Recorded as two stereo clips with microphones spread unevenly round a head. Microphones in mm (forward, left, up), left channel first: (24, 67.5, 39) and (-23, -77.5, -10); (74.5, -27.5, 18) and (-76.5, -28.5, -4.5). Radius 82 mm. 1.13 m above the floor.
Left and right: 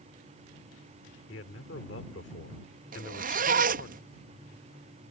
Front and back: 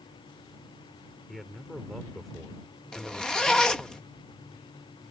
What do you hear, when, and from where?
1.3 s a man speaking: 90° left
2.9 s a zipper: 85° right